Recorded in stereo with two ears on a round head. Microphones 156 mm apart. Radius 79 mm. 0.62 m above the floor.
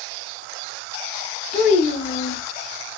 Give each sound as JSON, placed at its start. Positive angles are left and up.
{"t": 1.5, "sound": "a child speaking", "side_deg": 45, "distance_m": 1.2}